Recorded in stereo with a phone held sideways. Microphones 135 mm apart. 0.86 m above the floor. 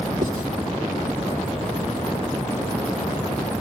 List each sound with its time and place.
0.2 s writing: 70° right (ahead or behind), 2 m